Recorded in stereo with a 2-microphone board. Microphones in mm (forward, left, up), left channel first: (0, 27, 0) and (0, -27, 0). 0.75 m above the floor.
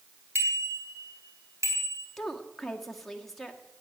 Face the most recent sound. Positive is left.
turn(degrees=5)  # may be behind; listen again after turning